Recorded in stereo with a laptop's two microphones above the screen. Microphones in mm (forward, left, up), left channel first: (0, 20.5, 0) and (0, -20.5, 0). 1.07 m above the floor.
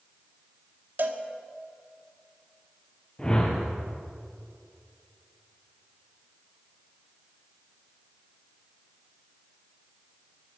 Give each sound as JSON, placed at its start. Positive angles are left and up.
{"t": 1.0, "sound": "a cowbell", "side_deg": -55, "distance_m": 1.4}
{"t": 3.2, "sound": "a whoosh", "side_deg": 20, "distance_m": 3.5}